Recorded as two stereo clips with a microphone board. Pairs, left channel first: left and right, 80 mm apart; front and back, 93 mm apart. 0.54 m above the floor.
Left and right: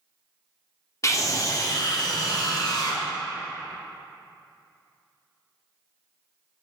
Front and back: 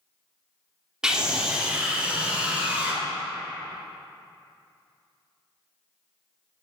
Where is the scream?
100° left, 1.1 m; by 3.0 s 105° left, 1.9 m.